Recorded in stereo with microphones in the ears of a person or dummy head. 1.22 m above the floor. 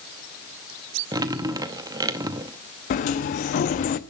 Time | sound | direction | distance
1.1 | dripping | 15° right (ahead or behind) | 0.7 m
2.9 | a sliding door | 40° left (ahead or behind) | 0.7 m